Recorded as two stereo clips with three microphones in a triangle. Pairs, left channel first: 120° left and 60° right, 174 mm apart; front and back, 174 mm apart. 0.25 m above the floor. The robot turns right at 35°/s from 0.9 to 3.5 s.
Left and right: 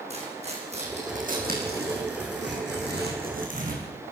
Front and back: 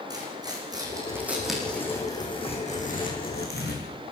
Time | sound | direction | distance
0.1 | tearing paper | 110° right | 7 m